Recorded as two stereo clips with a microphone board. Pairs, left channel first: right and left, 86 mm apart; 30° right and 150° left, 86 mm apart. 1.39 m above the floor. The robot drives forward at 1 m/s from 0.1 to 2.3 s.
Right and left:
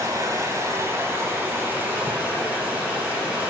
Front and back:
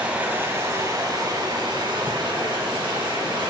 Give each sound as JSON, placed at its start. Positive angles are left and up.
{"t": 0.0, "sound": "running water", "azimuth_deg": 85, "distance_m": 1.4}